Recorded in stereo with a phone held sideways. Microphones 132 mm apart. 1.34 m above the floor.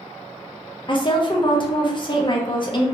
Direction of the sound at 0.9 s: 35° left (ahead or behind).